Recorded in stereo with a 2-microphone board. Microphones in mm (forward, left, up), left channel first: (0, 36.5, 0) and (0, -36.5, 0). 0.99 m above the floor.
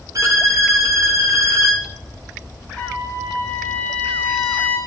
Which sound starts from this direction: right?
A violin, at 0.1 s.